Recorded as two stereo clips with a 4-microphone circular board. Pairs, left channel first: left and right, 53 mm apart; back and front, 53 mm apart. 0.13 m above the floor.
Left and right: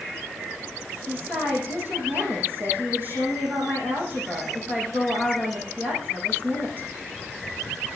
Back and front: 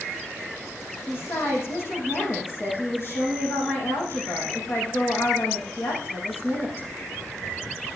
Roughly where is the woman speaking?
Behind right.